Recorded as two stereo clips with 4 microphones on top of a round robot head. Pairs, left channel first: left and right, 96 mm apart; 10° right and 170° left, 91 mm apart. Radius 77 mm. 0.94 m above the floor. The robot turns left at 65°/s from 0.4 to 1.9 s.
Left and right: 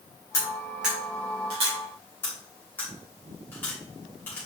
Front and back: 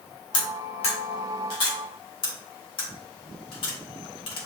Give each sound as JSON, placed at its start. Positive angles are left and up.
{"t": 0.3, "sound": "cutlery clinking", "azimuth_deg": 20, "distance_m": 2.5}
{"t": 2.2, "sound": "cutlery clinking", "azimuth_deg": 15, "distance_m": 2.5}